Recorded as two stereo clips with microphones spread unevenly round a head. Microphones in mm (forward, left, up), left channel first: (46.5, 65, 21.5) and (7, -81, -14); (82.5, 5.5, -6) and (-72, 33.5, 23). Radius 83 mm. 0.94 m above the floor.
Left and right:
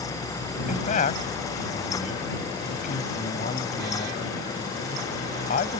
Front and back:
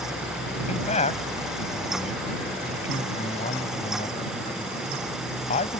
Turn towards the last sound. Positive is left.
turn(degrees=40)